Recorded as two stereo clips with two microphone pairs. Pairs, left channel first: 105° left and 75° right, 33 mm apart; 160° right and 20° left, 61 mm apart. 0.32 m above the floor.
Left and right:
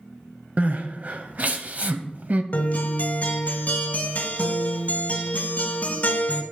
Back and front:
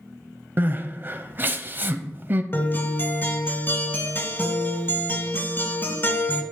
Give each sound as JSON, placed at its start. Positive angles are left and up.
{"t": 0.6, "sound": "crying", "azimuth_deg": -35, "distance_m": 0.5}
{"t": 2.5, "sound": "a guitar", "azimuth_deg": 140, "distance_m": 1.1}